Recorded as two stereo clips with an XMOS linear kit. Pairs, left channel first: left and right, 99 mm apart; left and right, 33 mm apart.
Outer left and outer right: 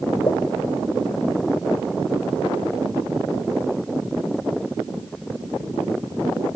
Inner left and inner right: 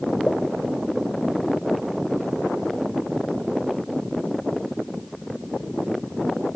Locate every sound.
0.3 s a pop: 40° left (ahead or behind)